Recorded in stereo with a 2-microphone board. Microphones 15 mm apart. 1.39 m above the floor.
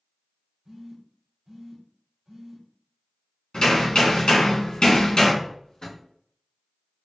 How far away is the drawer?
About 1.7 m.